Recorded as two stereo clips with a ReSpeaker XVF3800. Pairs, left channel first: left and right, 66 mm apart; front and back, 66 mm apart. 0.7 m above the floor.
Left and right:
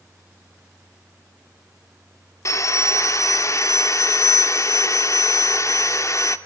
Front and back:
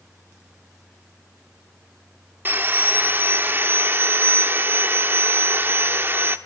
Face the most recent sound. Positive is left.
turn(degrees=125)